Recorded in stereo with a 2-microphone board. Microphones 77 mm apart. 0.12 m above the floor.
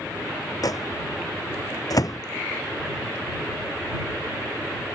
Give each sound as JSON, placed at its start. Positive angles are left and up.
{"t": 0.6, "sound": "a microwave", "side_deg": 50}